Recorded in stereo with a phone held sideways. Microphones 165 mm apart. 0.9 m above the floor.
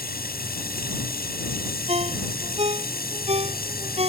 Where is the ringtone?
40° right (ahead or behind).